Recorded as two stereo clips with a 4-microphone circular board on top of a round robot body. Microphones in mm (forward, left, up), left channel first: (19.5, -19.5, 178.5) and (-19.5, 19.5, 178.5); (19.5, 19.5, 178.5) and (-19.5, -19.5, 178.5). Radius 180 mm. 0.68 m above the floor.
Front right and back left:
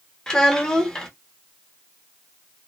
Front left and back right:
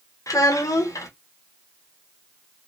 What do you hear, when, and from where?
0.3 s a child speaking: 35° left, 0.8 m